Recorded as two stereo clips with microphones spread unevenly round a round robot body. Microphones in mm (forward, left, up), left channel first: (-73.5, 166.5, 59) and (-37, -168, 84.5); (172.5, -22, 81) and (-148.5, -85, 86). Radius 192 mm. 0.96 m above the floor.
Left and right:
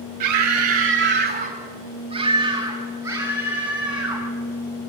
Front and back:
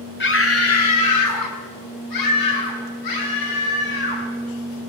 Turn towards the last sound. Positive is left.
turn(degrees=5)